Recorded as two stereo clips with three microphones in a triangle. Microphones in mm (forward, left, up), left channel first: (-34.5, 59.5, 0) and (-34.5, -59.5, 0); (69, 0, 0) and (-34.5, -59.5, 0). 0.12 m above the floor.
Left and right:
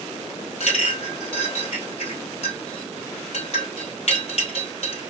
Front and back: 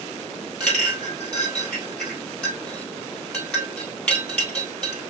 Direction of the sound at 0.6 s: 110° left.